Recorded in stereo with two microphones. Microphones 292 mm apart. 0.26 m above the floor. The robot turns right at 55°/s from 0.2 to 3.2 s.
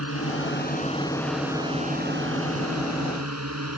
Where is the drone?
115° left; by 3.8 s 80° right.